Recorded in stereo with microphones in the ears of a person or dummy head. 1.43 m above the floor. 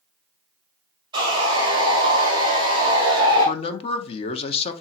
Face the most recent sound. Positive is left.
turn(degrees=35)  # may be behind; listen again after turning